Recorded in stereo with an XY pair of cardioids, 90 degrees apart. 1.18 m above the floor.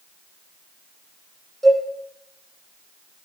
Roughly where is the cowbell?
Ahead.